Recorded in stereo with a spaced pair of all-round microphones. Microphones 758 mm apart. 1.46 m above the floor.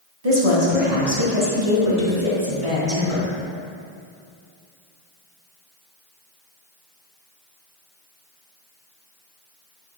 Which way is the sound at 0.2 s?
50° right (ahead or behind).